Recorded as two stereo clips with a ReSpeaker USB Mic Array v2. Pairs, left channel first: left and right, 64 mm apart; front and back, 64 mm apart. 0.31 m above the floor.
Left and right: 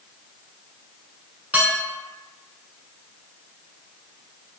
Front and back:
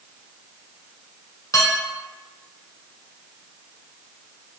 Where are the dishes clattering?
25° right, 2 m.